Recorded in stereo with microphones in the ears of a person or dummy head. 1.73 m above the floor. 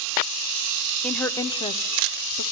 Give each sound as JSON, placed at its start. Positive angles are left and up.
{"t": 1.0, "sound": "a woman speaking", "side_deg": 0, "distance_m": 0.9}